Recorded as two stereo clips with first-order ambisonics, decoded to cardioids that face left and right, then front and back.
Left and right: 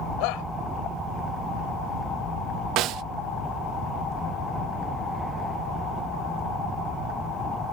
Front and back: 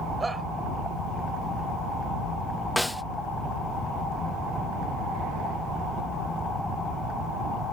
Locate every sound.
0.2 s a shout: 100° left
2.8 s a snare drum: 90° right